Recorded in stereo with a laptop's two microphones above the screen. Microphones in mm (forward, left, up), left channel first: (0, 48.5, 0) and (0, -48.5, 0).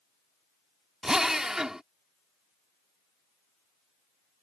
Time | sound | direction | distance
1.0 | a drill | 5° right (ahead or behind) | ?